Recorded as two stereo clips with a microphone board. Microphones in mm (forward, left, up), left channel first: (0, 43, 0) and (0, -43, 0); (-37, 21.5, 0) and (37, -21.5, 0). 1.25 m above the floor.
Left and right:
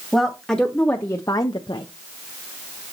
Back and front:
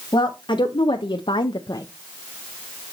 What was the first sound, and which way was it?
A woman speaking, straight behind.